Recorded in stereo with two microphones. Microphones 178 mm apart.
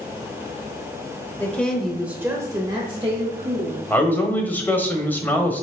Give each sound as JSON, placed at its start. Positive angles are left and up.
{"t": 1.4, "sound": "a woman speaking", "side_deg": 10, "distance_m": 1.1}
{"t": 3.9, "sound": "a man speaking", "side_deg": 10, "distance_m": 1.2}